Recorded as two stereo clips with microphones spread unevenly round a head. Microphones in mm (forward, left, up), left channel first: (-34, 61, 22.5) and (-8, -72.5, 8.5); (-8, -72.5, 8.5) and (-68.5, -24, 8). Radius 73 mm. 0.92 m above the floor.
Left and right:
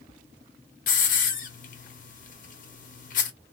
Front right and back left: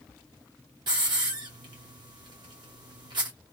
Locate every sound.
0.9 s a hiss: 105° left, 0.7 m